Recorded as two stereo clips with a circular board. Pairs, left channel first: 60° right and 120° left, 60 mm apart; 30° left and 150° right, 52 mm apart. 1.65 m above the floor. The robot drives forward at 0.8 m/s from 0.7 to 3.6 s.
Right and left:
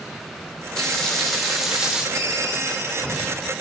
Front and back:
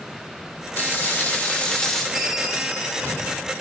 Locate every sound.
0.8 s frying: 15° left, 1.5 m; by 2.0 s 95° left, 1.1 m
2.1 s a ringtone: 120° left, 0.9 m; by 3.3 s 155° left, 1.6 m